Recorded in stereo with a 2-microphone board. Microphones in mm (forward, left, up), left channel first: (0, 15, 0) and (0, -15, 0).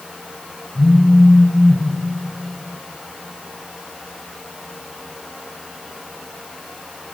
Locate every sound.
0.8 s a phone buzzing: 70° left (ahead or behind), 2 m